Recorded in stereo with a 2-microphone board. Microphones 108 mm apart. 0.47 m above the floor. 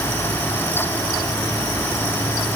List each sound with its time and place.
Only background noise.